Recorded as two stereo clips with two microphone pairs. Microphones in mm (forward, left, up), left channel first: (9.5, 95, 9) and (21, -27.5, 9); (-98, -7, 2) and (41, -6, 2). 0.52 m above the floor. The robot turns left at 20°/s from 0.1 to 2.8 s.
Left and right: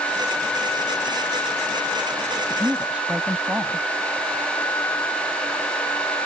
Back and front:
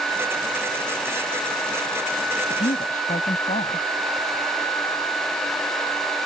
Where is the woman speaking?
160° right; by 3.9 s 165° right.